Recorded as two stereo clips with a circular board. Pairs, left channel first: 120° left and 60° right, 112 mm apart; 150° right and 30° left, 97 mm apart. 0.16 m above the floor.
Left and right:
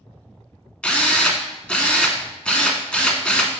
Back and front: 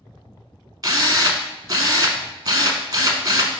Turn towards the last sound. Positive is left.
turn(degrees=45)